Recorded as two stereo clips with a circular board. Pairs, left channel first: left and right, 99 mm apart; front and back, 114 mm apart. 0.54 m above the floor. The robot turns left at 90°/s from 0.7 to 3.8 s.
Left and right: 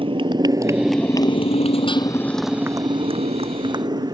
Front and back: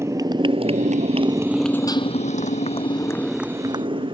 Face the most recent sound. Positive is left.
turn(degrees=-135)